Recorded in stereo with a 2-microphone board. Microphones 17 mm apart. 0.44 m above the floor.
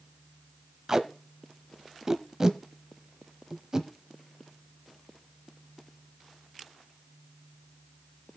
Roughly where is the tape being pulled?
Right.